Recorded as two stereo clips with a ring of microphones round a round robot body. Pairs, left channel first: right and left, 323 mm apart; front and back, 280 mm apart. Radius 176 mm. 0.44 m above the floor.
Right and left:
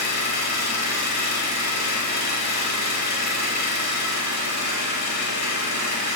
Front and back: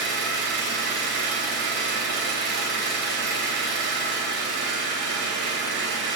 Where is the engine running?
125° right, 2.5 m.